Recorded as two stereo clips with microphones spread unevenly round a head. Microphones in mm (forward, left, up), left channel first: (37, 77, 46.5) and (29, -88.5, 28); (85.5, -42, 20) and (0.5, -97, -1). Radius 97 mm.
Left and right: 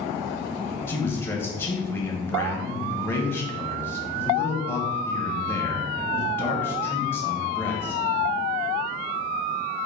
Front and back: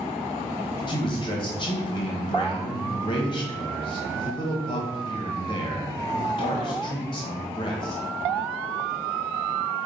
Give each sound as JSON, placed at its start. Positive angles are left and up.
{"t": 0.9, "sound": "a man speaking", "azimuth_deg": 10, "distance_m": 0.9}